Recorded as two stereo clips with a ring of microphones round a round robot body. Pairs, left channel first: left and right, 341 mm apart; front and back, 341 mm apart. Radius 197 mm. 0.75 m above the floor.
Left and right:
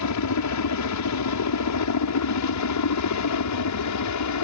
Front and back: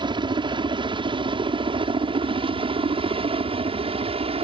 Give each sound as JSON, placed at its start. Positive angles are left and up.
{"t": 0.0, "sound": "a helicopter", "azimuth_deg": 105}